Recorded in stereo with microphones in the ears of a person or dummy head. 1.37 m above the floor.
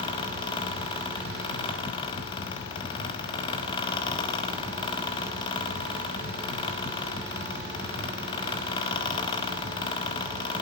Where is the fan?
30° left (ahead or behind), 1.2 m.